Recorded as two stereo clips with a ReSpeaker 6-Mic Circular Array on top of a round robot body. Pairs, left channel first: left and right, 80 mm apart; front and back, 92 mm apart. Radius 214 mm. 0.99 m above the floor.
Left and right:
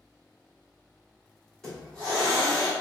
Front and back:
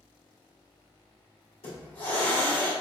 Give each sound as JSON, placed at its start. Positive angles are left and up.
{"t": 1.6, "sound": "a hiss", "azimuth_deg": 10, "distance_m": 1.8}